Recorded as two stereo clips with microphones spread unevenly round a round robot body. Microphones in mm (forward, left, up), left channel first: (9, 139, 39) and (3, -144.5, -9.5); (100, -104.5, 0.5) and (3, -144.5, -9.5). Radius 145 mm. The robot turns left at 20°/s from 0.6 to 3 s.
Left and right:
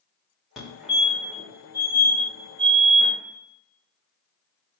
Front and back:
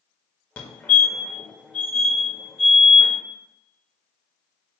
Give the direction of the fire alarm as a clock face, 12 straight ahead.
1 o'clock.